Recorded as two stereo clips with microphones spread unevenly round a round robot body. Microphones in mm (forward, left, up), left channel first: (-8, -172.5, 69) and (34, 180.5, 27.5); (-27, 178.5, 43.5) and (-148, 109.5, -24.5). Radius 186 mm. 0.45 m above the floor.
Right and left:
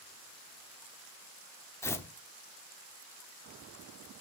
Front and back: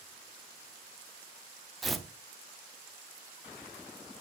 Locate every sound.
1.8 s tearing paper: 175° left, 1.0 m